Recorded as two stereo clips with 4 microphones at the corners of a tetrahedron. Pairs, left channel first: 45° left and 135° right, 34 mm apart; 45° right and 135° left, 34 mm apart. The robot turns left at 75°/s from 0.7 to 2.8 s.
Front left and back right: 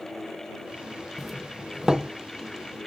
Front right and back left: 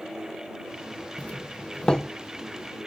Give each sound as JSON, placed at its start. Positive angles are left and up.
{"t": 1.2, "sound": "a doorbell", "azimuth_deg": -30}